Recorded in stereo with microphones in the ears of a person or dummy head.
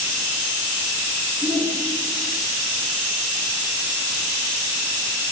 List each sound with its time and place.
1.4 s a shout: centre (ahead or behind), 3 m